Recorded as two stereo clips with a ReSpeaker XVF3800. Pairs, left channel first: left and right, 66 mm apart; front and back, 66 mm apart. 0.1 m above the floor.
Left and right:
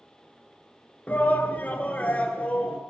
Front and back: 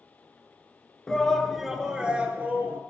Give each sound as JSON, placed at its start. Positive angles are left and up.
{"t": 1.1, "sound": "a shout", "azimuth_deg": 65, "distance_m": 1.2}